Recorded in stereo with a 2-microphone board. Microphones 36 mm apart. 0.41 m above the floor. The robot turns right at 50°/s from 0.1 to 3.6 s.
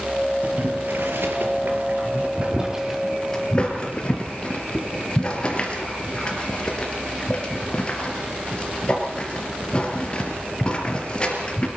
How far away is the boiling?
About 4 m.